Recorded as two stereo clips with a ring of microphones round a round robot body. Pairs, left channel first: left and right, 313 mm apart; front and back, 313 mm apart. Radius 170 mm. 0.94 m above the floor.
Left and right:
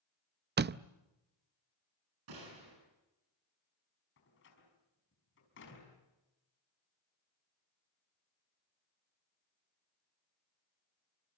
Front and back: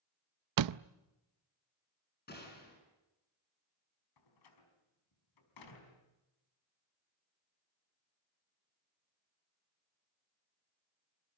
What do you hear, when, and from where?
0.6 s a door slam: 150° right, 0.6 m
2.3 s a gunshot: 60° right, 9.5 m
4.2 s a door slam: 30° left, 5 m